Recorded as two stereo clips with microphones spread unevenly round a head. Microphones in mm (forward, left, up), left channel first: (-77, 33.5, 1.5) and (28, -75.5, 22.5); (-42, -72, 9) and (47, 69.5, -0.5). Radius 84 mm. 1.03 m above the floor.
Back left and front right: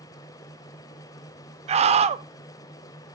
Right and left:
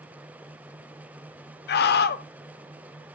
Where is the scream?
95° right, 0.7 m.